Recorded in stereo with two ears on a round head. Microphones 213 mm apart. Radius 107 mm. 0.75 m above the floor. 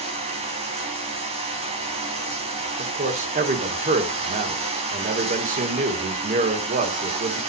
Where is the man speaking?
35° right (ahead or behind), 2 m.